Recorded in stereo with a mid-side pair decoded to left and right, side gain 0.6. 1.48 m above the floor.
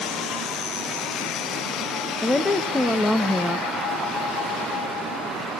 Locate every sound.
2.2 s a woman speaking: 5° left, 1.6 m